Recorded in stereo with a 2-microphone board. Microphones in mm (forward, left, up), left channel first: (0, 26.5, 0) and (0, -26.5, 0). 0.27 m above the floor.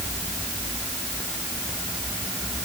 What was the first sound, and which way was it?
Only background noise.